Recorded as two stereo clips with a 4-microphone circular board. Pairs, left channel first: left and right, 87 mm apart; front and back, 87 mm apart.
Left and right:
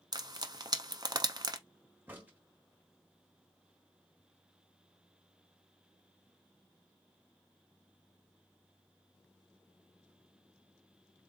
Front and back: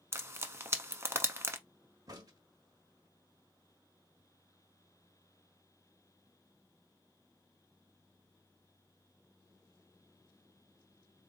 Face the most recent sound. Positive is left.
turn(degrees=-155)